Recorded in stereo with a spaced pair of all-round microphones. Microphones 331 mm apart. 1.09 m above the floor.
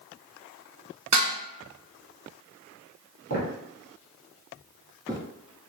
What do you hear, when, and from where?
1.1 s dishes clattering: 55° right (ahead or behind), 0.6 m
3.3 s footsteps: 50° right (ahead or behind), 1.5 m; by 5.2 s 10° right (ahead or behind), 1.0 m